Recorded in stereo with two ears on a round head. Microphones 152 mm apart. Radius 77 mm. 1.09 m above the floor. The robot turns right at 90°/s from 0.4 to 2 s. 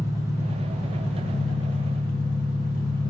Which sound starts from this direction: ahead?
An engine running, at 0.0 s.